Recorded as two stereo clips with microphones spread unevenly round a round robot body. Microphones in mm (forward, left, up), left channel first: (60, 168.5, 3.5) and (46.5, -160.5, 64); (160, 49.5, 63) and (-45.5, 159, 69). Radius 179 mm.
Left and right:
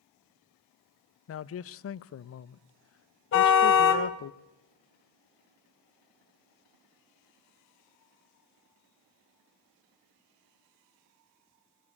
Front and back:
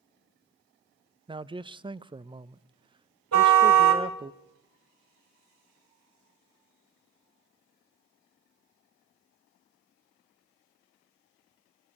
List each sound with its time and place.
1.3 s a man speaking: 85° left, 0.7 m
3.3 s a car horn: 145° left, 2.5 m